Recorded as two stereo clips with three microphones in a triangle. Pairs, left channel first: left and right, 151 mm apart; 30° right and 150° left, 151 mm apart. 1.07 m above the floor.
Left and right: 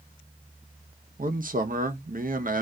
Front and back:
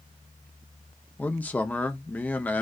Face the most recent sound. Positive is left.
turn(degrees=-110)